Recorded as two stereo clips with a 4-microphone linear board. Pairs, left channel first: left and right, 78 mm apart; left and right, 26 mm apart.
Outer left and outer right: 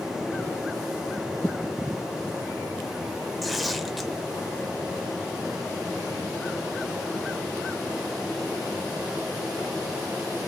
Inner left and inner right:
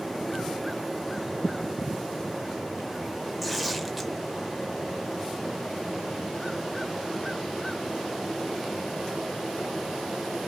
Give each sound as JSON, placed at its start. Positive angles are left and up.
{"t": 3.4, "sound": "tearing paper", "side_deg": 0, "distance_m": 0.9}